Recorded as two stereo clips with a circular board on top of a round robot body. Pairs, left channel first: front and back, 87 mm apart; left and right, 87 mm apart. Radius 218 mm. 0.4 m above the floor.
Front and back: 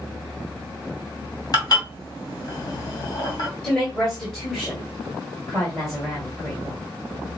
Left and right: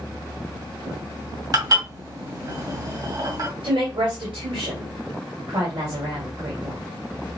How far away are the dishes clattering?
About 2.5 m.